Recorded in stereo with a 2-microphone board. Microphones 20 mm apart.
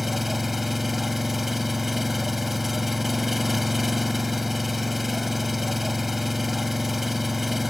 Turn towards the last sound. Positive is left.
turn(degrees=-10)  # may be behind; listen again after turning